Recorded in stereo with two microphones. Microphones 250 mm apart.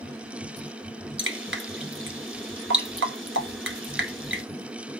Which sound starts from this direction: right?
Dripping, at 1.2 s.